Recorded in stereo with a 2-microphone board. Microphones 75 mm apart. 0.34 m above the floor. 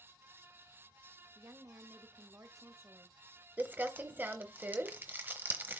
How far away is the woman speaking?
About 1.3 m.